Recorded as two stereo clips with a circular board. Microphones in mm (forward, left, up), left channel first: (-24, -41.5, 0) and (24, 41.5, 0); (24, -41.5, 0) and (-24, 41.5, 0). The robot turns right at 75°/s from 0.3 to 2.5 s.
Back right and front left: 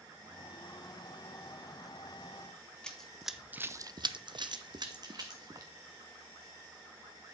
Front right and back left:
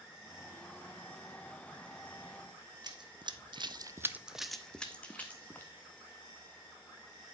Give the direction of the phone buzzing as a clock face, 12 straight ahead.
I don't hear a phone buzzing.